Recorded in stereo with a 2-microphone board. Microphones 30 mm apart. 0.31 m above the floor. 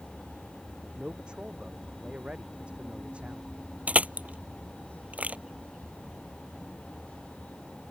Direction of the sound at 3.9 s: 60° right (ahead or behind).